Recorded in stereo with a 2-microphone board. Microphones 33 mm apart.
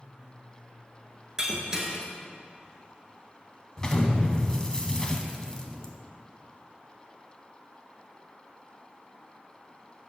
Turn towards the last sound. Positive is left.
turn(degrees=20)  # may be behind; listen again after turning